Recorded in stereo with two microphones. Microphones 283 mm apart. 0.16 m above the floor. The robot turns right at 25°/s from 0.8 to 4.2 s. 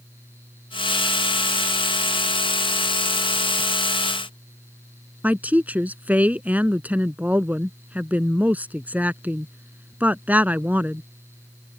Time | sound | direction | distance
5.2 | a woman speaking | 5° right (ahead or behind) | ?